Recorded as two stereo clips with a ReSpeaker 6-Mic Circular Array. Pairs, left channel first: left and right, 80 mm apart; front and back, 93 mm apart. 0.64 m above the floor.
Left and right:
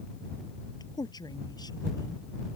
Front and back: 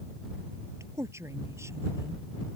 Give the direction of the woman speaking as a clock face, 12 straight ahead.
8 o'clock.